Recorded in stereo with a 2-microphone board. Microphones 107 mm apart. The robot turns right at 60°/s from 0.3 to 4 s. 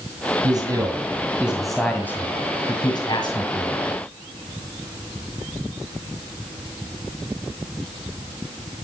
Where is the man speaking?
75° right, 1.9 m; by 3.7 s 125° left, 1.9 m.